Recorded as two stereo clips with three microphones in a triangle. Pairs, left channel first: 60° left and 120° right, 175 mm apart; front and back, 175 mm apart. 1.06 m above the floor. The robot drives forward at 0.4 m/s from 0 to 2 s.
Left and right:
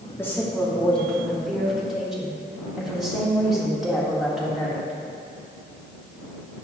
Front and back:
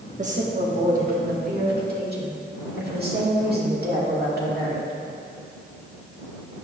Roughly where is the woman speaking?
Behind left.